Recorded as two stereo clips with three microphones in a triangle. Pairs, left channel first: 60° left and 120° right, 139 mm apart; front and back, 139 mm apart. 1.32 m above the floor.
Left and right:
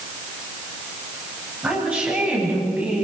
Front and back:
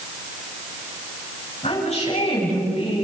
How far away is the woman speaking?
About 9 m.